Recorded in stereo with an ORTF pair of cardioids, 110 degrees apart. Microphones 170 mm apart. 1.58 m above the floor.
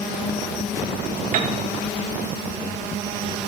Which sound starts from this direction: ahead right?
A piano, at 1.3 s.